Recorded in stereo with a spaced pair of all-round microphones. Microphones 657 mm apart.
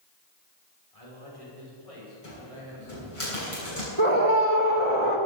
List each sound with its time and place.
0.9 s a man speaking: 60° left (ahead or behind), 5.5 m; by 3.2 s 50° left (ahead or behind), 7 m
2.2 s a cupboard door: 50° left (ahead or behind), 7 m
4.0 s a scream: 50° right (ahead or behind), 2.5 m